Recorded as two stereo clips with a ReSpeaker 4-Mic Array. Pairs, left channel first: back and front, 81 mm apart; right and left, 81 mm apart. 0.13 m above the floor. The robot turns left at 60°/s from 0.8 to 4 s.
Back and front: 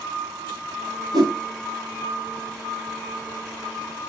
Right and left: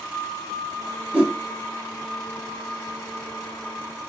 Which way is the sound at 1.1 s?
15° left.